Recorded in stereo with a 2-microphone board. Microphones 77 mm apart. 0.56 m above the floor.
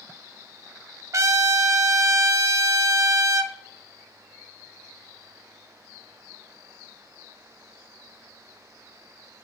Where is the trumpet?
45° right (ahead or behind), 0.6 m.